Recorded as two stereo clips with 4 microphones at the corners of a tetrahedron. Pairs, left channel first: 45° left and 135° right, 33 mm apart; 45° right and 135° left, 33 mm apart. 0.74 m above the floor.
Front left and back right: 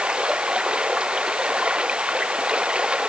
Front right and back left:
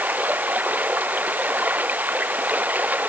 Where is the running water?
165° left.